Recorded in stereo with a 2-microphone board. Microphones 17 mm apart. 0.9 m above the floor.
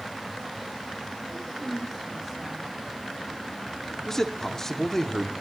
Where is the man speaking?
25° left (ahead or behind), 1.9 m.